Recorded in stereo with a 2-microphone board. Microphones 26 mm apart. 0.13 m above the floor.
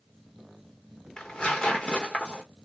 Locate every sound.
1.2 s tearing paper: 40° left (ahead or behind), 1.6 m